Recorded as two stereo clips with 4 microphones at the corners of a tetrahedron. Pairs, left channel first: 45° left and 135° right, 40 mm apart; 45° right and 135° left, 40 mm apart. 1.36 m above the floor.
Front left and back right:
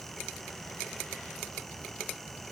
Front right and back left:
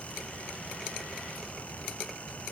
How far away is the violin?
I don't hear a violin.